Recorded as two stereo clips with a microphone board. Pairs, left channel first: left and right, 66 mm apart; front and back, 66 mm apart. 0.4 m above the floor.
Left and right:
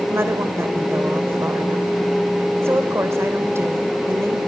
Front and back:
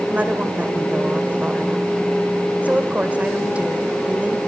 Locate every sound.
0.1 s a woman speaking: 120° right, 1.9 m